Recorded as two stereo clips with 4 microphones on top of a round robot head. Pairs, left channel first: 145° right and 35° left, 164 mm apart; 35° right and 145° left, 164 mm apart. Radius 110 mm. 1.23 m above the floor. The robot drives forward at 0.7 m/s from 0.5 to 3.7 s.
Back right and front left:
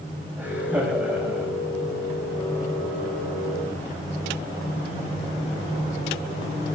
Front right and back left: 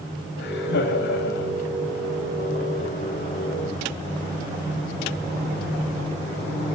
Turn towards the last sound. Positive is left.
turn(degrees=-60)